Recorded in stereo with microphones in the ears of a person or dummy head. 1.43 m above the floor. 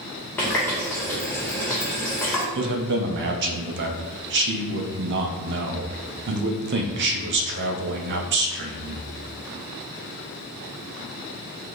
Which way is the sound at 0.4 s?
15° left (ahead or behind).